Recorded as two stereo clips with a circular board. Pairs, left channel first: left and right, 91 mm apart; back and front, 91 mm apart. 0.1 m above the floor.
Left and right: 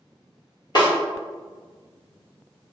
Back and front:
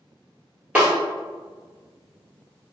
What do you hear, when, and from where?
0.8 s a snare drum: 75° left, 1.7 m